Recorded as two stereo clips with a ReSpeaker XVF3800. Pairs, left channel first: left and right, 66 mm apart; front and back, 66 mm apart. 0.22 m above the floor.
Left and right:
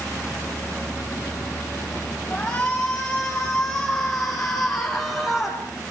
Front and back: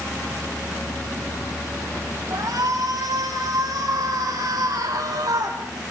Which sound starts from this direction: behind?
A shout, at 2.3 s.